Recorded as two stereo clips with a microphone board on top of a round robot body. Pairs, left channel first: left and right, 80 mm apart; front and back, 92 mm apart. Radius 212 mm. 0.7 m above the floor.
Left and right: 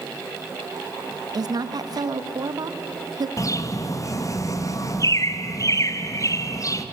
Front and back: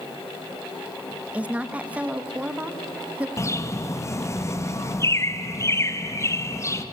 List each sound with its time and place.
1.3 s a woman speaking: 105° right, 1.6 m
3.4 s a bird: 55° left, 1.8 m